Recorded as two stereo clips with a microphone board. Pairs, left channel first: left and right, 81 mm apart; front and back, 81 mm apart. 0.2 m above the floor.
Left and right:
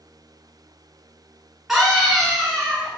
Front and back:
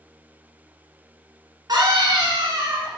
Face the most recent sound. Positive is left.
turn(degrees=-175)